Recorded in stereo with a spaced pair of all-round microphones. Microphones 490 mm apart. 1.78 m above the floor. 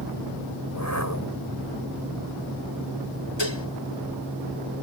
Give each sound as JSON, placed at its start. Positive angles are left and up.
{"t": 0.7, "sound": "a whoosh", "side_deg": 35}
{"t": 3.4, "sound": "dishes clattering", "side_deg": 60}